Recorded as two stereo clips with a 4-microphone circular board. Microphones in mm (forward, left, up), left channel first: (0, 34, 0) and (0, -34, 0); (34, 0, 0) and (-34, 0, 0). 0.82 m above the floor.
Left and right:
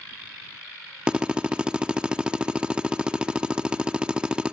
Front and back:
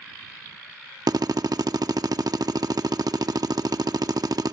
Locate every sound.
1.1 s a drill: 165° right